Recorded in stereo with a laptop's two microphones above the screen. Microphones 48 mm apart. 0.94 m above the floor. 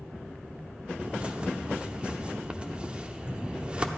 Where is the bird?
20° right (ahead or behind), 0.6 m.